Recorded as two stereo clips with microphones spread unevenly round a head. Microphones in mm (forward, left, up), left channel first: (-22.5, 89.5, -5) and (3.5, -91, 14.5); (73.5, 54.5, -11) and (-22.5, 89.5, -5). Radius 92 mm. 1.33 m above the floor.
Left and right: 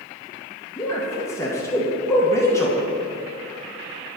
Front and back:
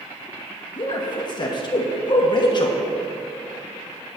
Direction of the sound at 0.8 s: 25° left.